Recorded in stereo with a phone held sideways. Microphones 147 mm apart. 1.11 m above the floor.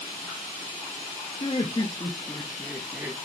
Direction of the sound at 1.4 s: 40° left (ahead or behind).